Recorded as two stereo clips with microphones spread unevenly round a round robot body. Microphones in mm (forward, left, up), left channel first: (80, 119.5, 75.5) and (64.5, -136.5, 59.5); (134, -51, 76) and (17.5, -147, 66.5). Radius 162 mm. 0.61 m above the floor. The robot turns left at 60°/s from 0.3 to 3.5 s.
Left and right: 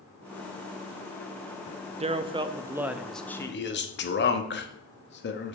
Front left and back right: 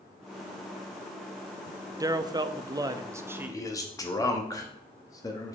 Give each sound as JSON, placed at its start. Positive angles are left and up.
{"t": 2.0, "sound": "a man speaking", "azimuth_deg": -110, "distance_m": 0.6}
{"t": 3.5, "sound": "a man speaking", "azimuth_deg": 100, "distance_m": 1.0}